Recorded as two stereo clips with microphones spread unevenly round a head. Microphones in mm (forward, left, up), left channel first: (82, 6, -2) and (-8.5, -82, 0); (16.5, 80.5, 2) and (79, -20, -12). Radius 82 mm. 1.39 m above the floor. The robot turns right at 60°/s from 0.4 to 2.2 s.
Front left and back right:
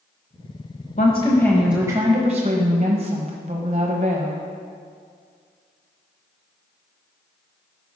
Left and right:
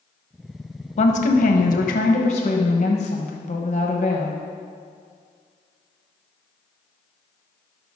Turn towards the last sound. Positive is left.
turn(degrees=170)